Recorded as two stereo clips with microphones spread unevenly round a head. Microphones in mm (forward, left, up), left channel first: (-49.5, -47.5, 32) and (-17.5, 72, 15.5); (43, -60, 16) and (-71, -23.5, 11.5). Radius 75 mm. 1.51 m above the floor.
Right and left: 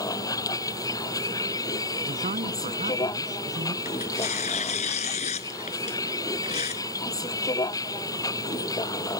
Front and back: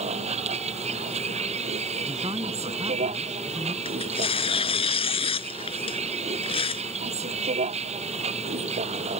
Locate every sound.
0.0 s a vehicle: 165° right
2.0 s a man speaking: 100° left
3.9 s tearing paper: 55° right